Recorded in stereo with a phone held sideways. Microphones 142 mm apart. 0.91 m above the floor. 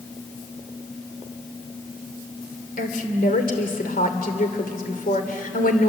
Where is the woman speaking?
85° left, 2.5 m.